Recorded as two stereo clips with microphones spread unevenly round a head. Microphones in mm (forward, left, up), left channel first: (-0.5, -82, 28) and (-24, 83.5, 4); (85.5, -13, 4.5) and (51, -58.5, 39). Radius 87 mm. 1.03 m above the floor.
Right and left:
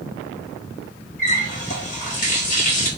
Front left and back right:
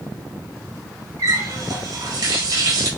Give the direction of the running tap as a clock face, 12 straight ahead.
4 o'clock.